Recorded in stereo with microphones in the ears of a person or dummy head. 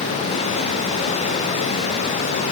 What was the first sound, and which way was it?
Only background noise.